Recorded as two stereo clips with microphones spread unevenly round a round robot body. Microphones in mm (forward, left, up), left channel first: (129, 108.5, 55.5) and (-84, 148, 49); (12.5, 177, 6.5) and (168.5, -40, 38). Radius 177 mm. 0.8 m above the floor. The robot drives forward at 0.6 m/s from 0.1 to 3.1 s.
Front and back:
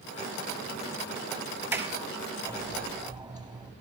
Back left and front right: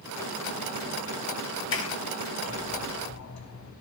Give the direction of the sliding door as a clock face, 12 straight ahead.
9 o'clock.